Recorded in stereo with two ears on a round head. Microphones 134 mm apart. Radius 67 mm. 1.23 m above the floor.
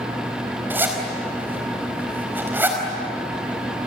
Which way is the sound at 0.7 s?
15° right (ahead or behind).